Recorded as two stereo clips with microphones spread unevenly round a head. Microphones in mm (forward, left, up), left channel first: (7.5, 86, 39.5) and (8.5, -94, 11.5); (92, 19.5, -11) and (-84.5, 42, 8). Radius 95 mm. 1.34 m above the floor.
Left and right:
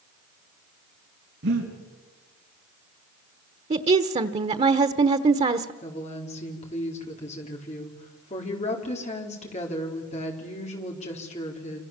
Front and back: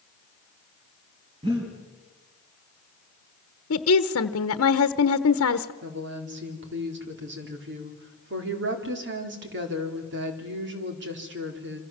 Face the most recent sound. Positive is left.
turn(degrees=150)